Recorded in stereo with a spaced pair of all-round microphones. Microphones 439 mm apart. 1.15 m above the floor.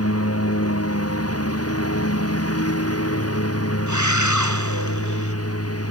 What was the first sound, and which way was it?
A lawn mower, 30° left (ahead or behind).